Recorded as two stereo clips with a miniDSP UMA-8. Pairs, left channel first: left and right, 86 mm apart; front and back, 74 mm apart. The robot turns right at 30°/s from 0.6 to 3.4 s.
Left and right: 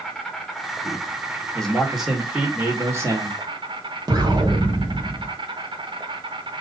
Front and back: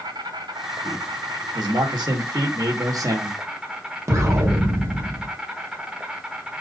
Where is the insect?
175° left, 1.3 m; by 6.6 s 100° right, 1.3 m.